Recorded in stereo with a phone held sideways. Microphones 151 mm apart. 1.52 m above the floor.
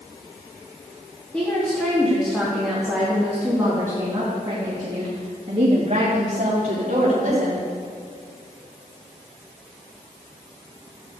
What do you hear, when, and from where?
1.3 s a woman speaking: 10° left (ahead or behind), 3 m; by 7.7 s 60° right (ahead or behind), 3.5 m